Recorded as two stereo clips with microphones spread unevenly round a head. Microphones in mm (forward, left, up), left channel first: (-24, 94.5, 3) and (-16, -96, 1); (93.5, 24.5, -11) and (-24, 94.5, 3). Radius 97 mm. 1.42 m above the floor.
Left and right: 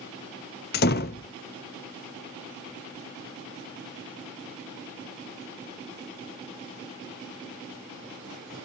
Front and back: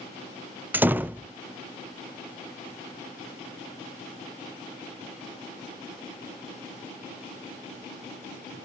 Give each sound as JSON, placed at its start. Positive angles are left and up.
{"t": 0.7, "sound": "a door slam", "azimuth_deg": 80, "distance_m": 0.6}